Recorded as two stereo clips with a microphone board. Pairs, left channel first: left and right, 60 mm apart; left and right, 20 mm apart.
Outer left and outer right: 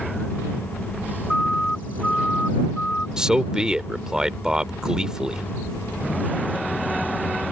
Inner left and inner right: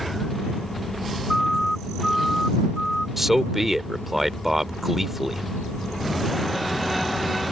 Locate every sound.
1.3 s a siren: 15° left (ahead or behind); by 3.1 s 20° left (ahead or behind)
3.2 s a man speaking: 10° right (ahead or behind)